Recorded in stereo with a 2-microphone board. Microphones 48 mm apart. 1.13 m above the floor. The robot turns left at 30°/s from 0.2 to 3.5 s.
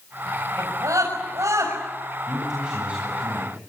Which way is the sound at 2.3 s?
5° right.